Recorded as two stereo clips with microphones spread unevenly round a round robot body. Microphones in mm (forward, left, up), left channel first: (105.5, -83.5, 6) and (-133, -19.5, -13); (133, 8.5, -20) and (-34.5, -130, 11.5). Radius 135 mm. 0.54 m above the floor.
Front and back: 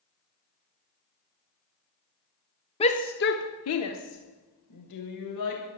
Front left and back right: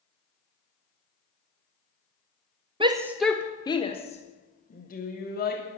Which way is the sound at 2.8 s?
75° right.